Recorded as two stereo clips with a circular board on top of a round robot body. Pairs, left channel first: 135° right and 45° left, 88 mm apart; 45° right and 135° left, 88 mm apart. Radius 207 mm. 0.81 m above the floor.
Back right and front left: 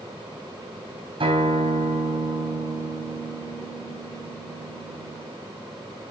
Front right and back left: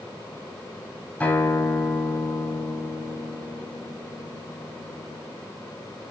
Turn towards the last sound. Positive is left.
turn(degrees=30)